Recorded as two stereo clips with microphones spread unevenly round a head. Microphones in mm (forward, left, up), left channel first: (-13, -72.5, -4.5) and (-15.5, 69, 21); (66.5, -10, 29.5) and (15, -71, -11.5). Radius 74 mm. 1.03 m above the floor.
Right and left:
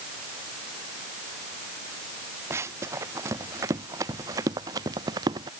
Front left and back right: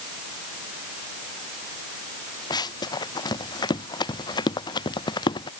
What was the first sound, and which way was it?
Running footsteps, 20° left.